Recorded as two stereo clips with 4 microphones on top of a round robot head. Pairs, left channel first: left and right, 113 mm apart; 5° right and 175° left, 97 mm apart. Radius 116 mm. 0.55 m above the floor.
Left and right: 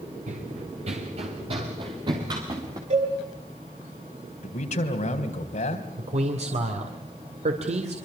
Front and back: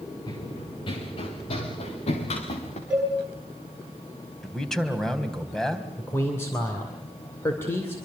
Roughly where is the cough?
No cough in this recording.